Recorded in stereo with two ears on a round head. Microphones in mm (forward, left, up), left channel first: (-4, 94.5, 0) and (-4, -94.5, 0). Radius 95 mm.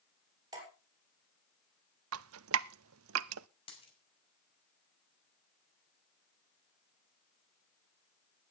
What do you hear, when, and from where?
0.5 s dripping: 20° right (ahead or behind), 6.5 m
2.1 s dripping: 70° right (ahead or behind), 0.5 m
3.7 s a dropped coin: 25° left (ahead or behind), 5.5 m